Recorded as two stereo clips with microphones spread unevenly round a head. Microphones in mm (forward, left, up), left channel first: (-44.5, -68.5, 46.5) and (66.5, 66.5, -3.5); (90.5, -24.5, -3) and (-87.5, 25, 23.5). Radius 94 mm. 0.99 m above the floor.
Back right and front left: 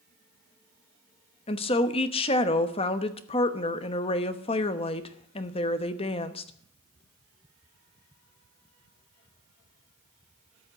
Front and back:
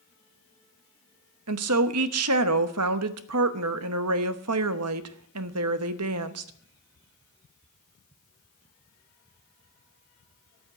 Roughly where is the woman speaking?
Behind.